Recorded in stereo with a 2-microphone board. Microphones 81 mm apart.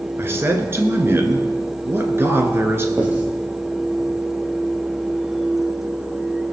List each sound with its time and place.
0.2 s a man speaking: 30° right (ahead or behind), 1.6 m
3.0 s writing: 20° right (ahead or behind), 2.5 m